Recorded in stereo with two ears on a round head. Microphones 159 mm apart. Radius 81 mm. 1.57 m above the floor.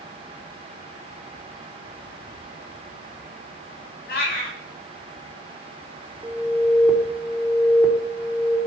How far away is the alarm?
About 4.5 m.